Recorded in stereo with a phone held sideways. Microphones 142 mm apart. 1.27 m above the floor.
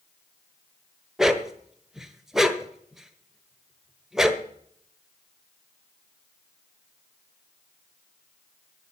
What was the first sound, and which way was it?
A dog barking, 5° right (ahead or behind).